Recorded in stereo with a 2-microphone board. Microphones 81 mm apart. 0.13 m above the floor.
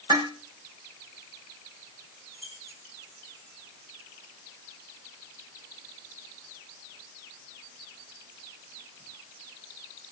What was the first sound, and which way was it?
Dishes clattering, 60° right (ahead or behind).